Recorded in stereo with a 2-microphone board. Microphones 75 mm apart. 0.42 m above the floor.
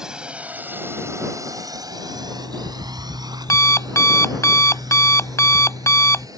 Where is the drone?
5° right (ahead or behind); by 6.4 s 55° right (ahead or behind).